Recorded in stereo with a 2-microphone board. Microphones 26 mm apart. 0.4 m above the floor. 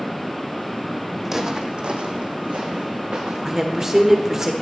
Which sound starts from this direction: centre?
Footsteps, at 1.2 s.